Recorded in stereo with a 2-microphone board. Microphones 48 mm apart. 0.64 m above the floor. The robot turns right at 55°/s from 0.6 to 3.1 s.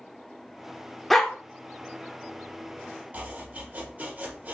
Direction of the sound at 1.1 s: 5° left (ahead or behind).